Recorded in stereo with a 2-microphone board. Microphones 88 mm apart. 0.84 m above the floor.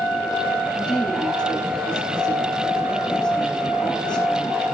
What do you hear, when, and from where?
0.8 s a woman speaking: 10° left (ahead or behind), 10 m